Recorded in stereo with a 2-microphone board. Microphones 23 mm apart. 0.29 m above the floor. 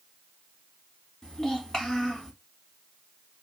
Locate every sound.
1.2 s a child speaking: 25° left (ahead or behind), 1.3 m